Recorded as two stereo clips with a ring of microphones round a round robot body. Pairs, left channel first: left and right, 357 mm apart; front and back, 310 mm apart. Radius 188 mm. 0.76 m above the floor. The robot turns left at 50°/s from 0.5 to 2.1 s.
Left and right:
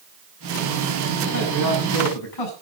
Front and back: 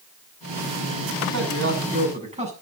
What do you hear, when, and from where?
1.3 s a man speaking: 150° left, 7 m; by 2.5 s 110° left, 7 m